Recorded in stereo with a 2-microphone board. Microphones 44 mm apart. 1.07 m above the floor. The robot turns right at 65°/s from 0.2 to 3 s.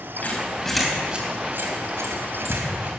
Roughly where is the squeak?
Left.